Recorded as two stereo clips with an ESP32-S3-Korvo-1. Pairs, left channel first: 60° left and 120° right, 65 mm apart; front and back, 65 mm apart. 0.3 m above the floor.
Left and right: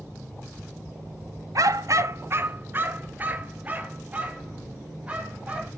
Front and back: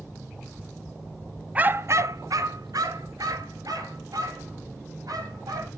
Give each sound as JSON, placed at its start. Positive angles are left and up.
{"t": 1.6, "sound": "a dog barking", "azimuth_deg": -115, "distance_m": 0.9}